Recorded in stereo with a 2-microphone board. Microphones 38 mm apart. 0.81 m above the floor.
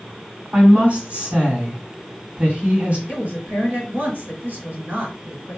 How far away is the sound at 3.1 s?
About 2 m.